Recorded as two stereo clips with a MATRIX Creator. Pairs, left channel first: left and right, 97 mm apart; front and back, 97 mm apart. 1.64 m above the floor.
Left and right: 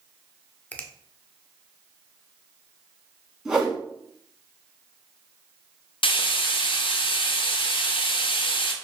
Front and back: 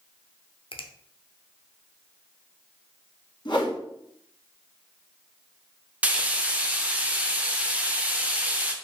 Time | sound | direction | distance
0.7 | a finger snap | 15° left | 0.5 m
3.5 | a whoosh | 10° right | 1.2 m
6.0 | frying | 105° left | 0.6 m